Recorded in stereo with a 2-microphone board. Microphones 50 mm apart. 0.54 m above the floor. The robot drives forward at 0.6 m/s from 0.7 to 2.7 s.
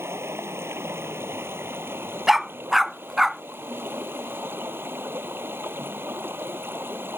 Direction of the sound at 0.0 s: 60° right (ahead or behind).